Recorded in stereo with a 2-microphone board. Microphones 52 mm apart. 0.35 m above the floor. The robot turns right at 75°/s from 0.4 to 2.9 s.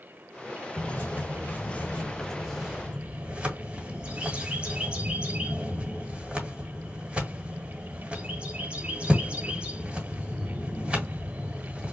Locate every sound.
0.8 s a bird: 30° left (ahead or behind), 1.6 m; by 11.9 s 20° right (ahead or behind), 1.6 m